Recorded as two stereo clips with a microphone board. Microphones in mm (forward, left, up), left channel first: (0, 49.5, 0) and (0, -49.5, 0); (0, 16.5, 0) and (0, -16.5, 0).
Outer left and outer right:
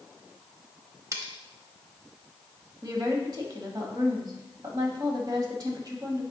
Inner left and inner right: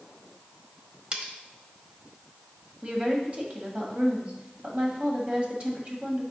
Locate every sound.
1.1 s cutlery clinking: 30° right (ahead or behind), 0.8 m
2.8 s a woman speaking: 40° right (ahead or behind), 1.3 m